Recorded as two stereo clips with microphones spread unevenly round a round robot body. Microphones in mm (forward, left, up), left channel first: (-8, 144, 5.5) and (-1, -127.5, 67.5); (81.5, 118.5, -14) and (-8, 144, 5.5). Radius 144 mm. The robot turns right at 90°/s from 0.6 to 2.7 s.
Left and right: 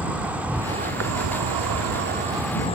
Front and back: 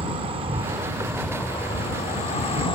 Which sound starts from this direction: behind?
An insect, at 0.0 s.